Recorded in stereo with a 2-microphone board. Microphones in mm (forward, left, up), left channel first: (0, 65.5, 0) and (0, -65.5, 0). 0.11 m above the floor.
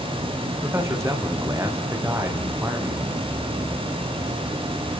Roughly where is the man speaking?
Right.